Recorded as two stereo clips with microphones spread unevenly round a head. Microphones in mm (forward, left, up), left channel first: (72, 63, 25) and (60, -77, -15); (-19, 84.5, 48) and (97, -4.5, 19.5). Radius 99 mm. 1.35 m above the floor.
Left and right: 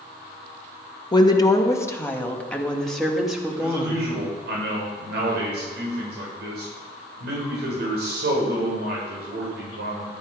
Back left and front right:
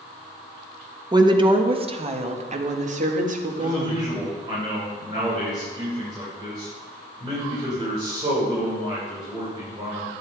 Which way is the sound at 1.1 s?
25° left.